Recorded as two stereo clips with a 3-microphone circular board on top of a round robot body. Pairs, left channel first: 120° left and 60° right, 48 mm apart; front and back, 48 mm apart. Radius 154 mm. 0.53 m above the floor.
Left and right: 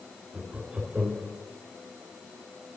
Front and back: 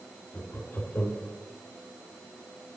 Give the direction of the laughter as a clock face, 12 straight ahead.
11 o'clock.